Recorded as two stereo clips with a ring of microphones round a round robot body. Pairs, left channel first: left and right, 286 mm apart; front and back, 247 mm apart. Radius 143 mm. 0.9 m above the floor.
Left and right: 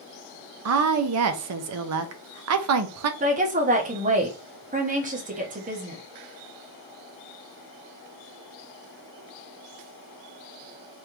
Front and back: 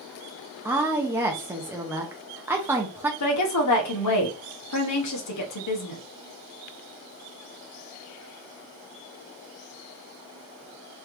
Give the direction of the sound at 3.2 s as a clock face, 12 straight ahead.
1 o'clock.